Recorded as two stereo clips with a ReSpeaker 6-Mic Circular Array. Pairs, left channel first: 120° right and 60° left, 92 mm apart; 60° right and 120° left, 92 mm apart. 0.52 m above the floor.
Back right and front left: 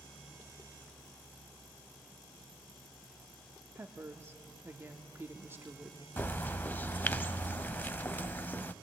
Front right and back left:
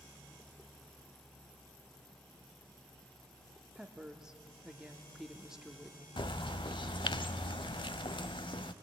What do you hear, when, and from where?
3.8 s a woman speaking: 45° left, 1.0 m
6.2 s a bird: 55° right, 0.5 m